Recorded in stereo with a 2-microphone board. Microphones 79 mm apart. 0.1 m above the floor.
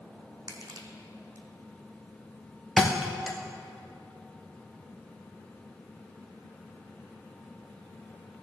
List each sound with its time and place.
0.5 s crushing: 50° right (ahead or behind), 1.2 m
2.8 s a thud: 5° right (ahead or behind), 1.3 m